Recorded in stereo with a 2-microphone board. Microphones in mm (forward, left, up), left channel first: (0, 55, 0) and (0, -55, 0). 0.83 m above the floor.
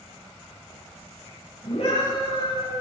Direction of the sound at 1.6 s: 80° left.